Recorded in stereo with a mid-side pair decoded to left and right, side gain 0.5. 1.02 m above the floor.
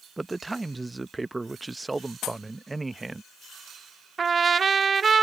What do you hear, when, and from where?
0.2 s a man speaking: 20° right
2.2 s a pop: 70° left
4.2 s a trumpet: 40° right